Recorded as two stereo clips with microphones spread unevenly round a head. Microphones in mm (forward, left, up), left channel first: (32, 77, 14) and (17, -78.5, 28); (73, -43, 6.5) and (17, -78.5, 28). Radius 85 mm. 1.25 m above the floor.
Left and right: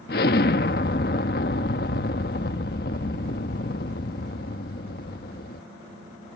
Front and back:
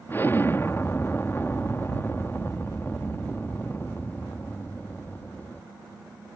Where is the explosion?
120° left.